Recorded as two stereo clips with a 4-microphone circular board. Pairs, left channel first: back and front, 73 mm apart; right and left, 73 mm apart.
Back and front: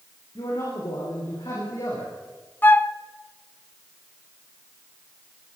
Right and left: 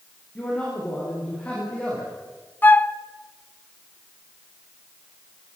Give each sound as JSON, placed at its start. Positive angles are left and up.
{"t": 0.3, "sound": "a man speaking", "azimuth_deg": -160, "distance_m": 9.0}
{"t": 2.6, "sound": "a flute", "azimuth_deg": -135, "distance_m": 0.6}